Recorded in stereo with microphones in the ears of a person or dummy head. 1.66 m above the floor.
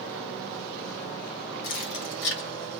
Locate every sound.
1.6 s keys jangling: 50° left (ahead or behind), 0.8 m; by 2.8 s 65° left (ahead or behind), 1.2 m